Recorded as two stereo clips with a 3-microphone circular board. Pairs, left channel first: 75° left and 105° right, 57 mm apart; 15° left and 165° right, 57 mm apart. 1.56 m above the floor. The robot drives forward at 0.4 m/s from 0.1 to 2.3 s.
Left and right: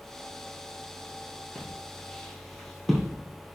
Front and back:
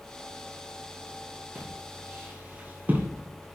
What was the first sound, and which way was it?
Footsteps, 145° left.